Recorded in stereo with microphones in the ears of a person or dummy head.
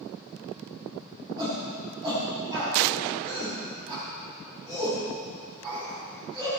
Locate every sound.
1.4 s a shout: 25° right (ahead or behind), 6.5 m